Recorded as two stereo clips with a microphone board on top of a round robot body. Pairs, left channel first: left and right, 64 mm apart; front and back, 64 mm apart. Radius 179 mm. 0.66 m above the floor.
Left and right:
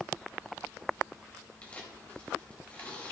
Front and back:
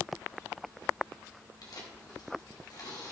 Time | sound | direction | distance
1.6 | tearing paper | 20° left | 4 m